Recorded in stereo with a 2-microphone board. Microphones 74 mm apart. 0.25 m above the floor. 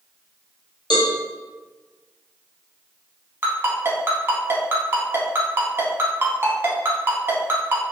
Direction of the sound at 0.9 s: 75° left (ahead or behind).